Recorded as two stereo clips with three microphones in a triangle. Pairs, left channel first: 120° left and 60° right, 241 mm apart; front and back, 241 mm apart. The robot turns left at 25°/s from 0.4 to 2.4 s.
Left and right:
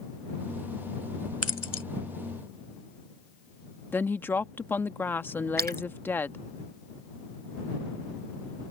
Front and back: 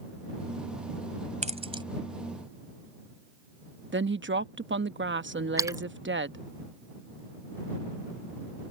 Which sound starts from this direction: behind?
A woman speaking, at 3.9 s.